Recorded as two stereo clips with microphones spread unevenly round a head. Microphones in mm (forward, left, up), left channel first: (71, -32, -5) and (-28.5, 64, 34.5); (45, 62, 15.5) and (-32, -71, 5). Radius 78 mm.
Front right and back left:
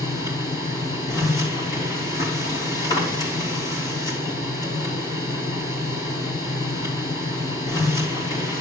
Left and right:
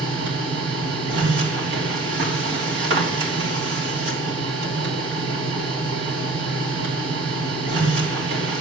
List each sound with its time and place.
0.0 s a machine running: 110° right, 3 m